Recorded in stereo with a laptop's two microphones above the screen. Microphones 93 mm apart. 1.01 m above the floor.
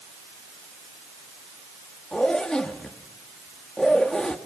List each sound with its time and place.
2.1 s a zipper: 10° left (ahead or behind), 2 m